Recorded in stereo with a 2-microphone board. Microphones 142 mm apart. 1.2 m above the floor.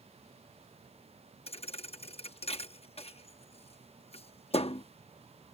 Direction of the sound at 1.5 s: 45° left (ahead or behind).